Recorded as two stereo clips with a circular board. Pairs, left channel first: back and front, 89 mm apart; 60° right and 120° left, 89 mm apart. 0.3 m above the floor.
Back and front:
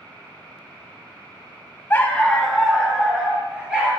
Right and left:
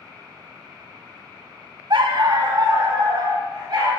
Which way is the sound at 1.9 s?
120° left.